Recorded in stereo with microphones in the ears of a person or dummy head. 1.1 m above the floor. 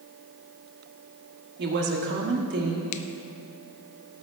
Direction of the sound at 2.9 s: 35° left (ahead or behind).